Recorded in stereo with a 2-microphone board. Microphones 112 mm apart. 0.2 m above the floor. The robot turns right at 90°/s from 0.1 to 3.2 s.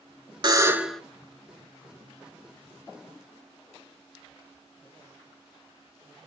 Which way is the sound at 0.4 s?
45° right.